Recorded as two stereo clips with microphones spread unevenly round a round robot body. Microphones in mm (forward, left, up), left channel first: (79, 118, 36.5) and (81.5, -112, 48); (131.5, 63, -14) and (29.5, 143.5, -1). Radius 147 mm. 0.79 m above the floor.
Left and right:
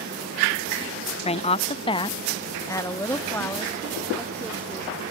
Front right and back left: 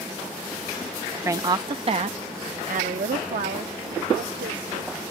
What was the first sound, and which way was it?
A woman speaking, 80° left.